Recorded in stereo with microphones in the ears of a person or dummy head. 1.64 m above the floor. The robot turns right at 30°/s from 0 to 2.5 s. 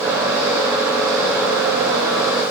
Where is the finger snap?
No finger snap in this recording.